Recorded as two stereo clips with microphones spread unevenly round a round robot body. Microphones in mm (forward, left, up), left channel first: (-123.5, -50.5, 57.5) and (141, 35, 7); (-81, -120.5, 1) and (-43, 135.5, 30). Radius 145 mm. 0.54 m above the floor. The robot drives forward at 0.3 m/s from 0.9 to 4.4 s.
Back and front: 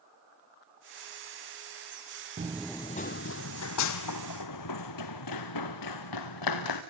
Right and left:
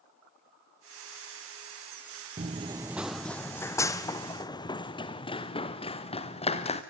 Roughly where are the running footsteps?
Left.